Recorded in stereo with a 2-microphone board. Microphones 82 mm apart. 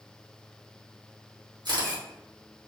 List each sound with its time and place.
1.6 s a camera shutter: 60° right (ahead or behind), 1.4 m